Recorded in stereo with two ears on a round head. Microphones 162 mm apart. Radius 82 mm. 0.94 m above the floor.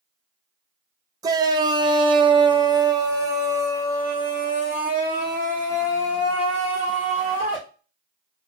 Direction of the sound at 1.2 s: 20° right (ahead or behind).